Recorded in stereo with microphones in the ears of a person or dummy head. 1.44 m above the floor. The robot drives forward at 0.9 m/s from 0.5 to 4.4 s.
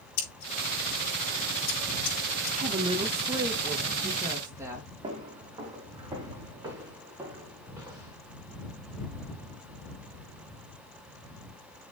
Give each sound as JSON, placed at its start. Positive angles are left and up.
{"t": 0.2, "sound": "scissors", "side_deg": 55, "distance_m": 4.5}
{"t": 2.5, "sound": "a woman speaking", "side_deg": -45, "distance_m": 0.8}
{"t": 5.0, "sound": "footsteps", "side_deg": -25, "distance_m": 3.5}